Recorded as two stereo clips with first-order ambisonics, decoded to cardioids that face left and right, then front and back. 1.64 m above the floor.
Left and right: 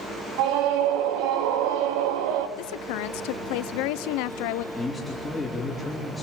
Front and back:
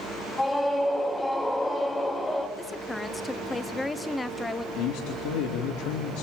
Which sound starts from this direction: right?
A scream, at 0.4 s.